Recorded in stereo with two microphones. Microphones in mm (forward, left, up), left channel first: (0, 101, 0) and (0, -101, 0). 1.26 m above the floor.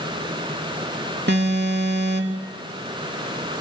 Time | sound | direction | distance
1.3 | an alarm | 60° right (ahead or behind) | 3 m